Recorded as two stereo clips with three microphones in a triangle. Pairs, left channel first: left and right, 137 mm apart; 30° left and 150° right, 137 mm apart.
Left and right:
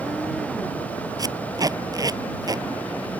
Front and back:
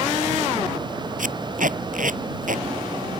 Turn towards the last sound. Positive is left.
turn(degrees=-150)